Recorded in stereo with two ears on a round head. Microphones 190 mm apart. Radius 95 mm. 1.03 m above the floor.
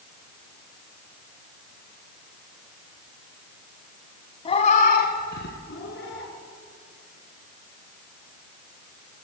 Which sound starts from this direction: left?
A cat meowing, at 4.5 s.